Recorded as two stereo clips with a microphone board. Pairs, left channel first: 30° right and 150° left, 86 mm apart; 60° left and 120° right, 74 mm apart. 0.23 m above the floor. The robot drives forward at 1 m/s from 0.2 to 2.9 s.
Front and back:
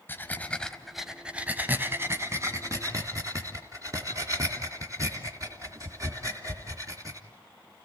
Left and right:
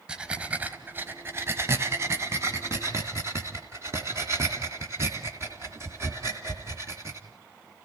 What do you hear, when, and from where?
0.1 s breathing: 55° right, 1.5 m; by 7.2 s 165° right, 2.5 m